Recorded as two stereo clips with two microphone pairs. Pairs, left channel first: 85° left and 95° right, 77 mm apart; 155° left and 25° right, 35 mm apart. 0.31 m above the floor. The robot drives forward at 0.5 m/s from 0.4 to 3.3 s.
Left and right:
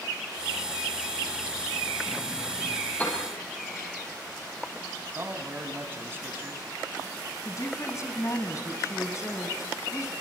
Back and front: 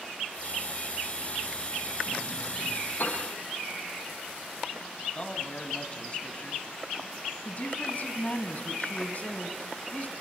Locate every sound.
3.0 s a piano: 150° left, 6.5 m
5.1 s a man speaking: 150° right, 2.5 m
7.5 s a woman speaking: 120° left, 2.5 m